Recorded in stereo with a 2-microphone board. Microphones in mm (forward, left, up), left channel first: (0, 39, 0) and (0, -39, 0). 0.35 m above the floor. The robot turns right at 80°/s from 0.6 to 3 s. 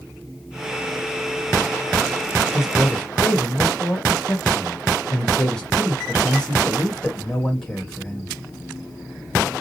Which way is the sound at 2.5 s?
20° right.